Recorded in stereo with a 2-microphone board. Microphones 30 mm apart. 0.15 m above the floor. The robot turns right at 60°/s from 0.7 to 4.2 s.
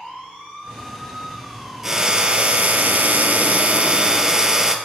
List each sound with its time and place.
1.8 s a drill: 170° right, 2 m; by 4.8 s 25° right, 2 m